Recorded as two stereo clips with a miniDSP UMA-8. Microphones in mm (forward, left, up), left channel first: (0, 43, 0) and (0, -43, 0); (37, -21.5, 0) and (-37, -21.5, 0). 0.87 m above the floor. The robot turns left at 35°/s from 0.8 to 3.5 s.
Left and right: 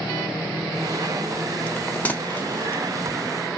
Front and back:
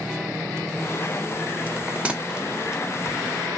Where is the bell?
140° left, 0.6 m; by 2.8 s 100° left, 0.6 m.